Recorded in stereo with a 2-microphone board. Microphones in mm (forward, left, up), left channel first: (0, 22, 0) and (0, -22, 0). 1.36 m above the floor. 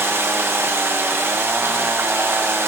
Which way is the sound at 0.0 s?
70° right (ahead or behind).